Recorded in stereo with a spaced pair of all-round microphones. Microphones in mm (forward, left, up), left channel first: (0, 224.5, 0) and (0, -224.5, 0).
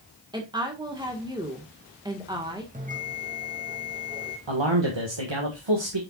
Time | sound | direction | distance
0.3 | a woman speaking | 10° right (ahead or behind) | 1.5 m
2.7 | a bell | 15° right (ahead or behind) | 2 m
4.5 | a man speaking | 75° right (ahead or behind) | 1.7 m